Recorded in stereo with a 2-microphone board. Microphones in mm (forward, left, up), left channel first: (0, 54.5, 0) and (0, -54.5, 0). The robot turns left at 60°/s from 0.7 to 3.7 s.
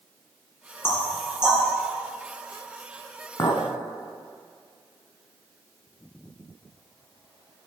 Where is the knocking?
20° left (ahead or behind), 2 m; by 1.6 s 20° right (ahead or behind), 2 m.